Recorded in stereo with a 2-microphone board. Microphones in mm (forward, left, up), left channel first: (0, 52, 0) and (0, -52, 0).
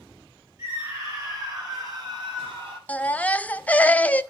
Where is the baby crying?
15° left (ahead or behind), 0.6 m.